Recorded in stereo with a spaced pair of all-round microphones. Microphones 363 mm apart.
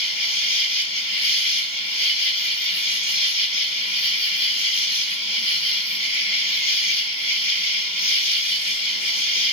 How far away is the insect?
About 2.5 m.